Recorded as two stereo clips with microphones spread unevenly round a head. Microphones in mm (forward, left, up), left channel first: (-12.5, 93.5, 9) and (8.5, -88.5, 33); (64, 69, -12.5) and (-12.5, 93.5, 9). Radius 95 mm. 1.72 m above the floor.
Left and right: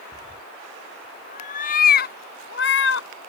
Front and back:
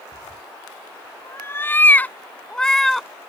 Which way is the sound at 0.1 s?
25° left.